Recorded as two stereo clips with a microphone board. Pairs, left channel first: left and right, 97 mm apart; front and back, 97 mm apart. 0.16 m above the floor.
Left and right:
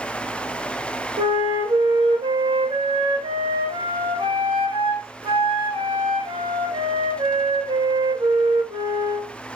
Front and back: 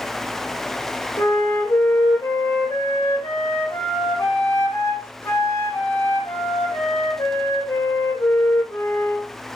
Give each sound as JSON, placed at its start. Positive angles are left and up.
{"t": 1.2, "sound": "a flute", "azimuth_deg": -65, "distance_m": 4.5}